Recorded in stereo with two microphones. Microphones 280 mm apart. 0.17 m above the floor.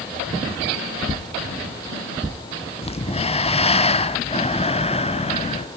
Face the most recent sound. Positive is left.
turn(degrees=20)  # may be behind; listen again after turning